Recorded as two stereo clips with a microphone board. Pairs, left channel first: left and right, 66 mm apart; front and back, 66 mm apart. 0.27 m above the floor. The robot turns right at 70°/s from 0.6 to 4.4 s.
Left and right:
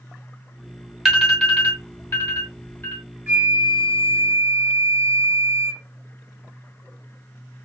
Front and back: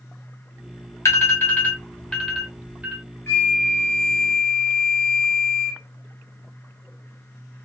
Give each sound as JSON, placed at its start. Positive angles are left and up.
{"t": 1.1, "sound": "an alarm", "azimuth_deg": 0, "distance_m": 1.2}
{"t": 3.3, "sound": "a flute", "azimuth_deg": -45, "distance_m": 1.7}